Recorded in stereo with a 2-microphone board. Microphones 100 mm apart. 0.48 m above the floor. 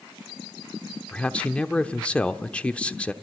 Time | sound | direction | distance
1.1 | a man speaking | 10° left (ahead or behind) | 1.0 m